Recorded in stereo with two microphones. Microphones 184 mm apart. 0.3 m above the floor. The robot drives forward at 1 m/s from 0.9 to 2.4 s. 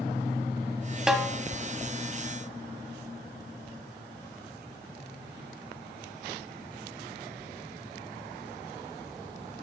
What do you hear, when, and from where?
1.1 s a snare drum: 5° right (ahead or behind), 1.0 m